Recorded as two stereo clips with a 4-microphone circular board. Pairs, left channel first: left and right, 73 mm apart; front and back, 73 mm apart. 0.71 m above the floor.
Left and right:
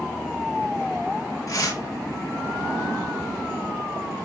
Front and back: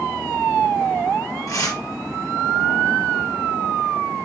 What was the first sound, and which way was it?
Tearing paper, 45° left.